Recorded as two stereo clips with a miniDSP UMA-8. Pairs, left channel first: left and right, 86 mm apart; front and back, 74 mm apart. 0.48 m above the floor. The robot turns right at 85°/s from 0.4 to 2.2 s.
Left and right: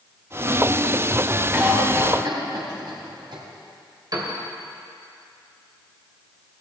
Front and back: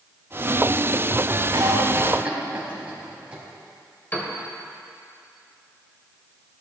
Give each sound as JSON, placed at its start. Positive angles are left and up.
{"t": 1.5, "sound": "a cough", "azimuth_deg": -165, "distance_m": 3.5}
{"t": 4.1, "sound": "a piano", "azimuth_deg": -65, "distance_m": 2.0}